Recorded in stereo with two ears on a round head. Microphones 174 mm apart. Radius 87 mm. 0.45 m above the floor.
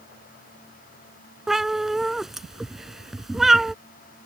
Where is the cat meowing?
Centre (ahead or behind).